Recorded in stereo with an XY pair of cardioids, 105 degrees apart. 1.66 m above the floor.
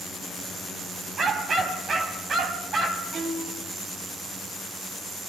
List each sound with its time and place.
1.2 s a dog barking: 45° right, 5.5 m
3.1 s a violin: 55° right, 8.5 m